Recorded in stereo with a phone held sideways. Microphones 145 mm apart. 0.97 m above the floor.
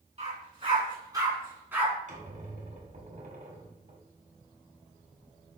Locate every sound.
0.2 s a dog barking: 45° right (ahead or behind), 3 m; by 1.9 s 10° right (ahead or behind), 3 m
2.1 s a squeak: 55° right (ahead or behind), 1.9 m